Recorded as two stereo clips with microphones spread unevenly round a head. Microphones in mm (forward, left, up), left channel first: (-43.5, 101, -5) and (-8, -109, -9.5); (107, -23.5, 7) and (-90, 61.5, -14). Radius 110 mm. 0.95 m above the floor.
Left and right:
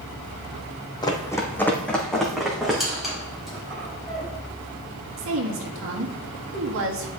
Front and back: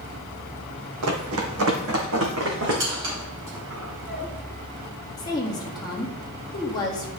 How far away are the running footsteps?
About 2 m.